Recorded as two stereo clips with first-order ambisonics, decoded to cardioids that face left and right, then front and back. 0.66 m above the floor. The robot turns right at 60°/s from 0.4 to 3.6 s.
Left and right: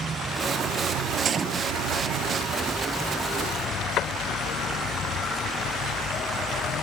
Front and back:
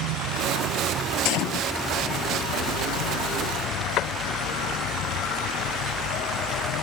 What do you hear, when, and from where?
0.0 s an insect: 160° right; by 6.8 s 35° left
1.2 s a gunshot: 30° right; by 1.7 s 5° right
4.0 s a door slam: 40° left